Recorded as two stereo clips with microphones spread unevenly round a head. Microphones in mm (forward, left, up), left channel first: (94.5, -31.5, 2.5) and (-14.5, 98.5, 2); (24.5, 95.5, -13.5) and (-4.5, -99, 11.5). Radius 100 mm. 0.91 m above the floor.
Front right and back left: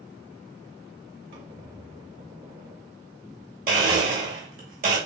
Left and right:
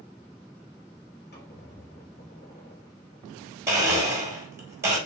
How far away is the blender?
About 1.3 m.